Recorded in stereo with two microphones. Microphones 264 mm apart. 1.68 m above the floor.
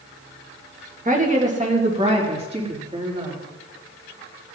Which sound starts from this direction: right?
A woman speaking, at 1.1 s.